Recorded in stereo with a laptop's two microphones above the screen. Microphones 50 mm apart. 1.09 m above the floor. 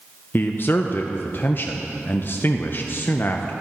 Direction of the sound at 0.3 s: 45° left (ahead or behind).